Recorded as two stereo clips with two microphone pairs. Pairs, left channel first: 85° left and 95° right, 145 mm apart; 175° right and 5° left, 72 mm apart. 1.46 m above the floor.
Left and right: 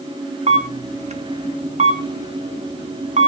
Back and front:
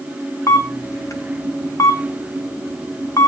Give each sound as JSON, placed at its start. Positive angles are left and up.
{"t": 0.5, "sound": "a camera shutter", "azimuth_deg": -130, "distance_m": 1.4}